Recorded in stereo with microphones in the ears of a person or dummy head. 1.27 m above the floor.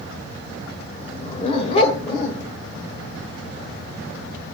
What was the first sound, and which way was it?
A dog barking, 35° left (ahead or behind).